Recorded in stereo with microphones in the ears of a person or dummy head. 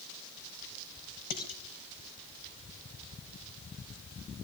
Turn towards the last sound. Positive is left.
turn(degrees=50)  # may be behind; listen again after turning